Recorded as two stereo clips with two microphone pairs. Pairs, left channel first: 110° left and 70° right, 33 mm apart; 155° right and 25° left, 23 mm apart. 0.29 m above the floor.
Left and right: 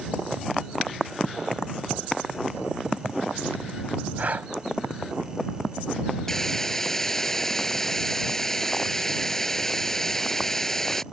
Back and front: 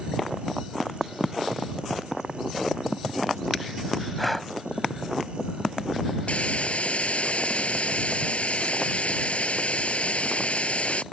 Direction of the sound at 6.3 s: 175° right.